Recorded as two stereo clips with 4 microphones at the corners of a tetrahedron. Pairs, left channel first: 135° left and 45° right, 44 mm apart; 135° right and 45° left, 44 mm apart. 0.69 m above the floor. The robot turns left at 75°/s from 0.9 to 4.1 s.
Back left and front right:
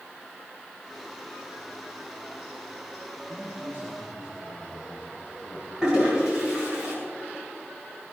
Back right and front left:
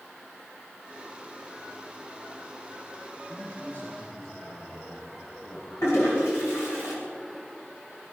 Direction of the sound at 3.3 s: 55° right.